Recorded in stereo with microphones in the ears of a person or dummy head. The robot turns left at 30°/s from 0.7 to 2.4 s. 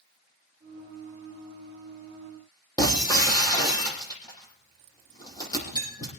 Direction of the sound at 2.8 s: 20° left (ahead or behind).